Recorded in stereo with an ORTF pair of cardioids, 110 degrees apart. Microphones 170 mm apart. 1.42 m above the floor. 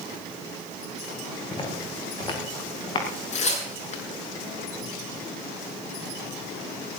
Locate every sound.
1.5 s footsteps: 30° left, 7 m
3.3 s tearing paper: 45° left, 7 m